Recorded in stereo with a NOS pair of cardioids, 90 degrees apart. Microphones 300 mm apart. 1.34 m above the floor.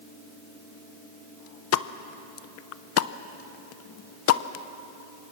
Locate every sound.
1.7 s a pop: 55° left, 0.8 m